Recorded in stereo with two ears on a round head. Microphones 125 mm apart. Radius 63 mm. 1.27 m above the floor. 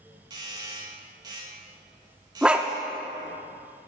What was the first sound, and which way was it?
A doorbell, 30° right (ahead or behind).